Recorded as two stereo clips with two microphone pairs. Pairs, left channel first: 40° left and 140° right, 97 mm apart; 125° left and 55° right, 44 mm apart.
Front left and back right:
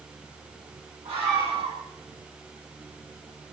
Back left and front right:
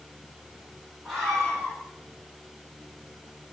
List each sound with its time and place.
1.1 s a scream: 155° right, 9.5 m